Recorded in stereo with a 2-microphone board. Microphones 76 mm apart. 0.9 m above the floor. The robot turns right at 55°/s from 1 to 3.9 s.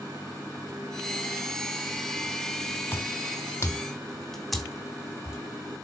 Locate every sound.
2.9 s footsteps: 25° left (ahead or behind), 1.2 m; by 5.4 s 10° right (ahead or behind), 2.5 m